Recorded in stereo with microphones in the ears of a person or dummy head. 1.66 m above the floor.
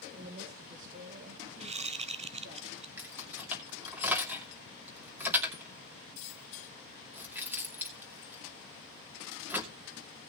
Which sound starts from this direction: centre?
Keys jangling, at 3.0 s.